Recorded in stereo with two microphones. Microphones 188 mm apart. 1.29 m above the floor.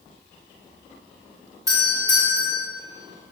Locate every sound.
1.7 s a doorbell: 15° right (ahead or behind), 2.5 m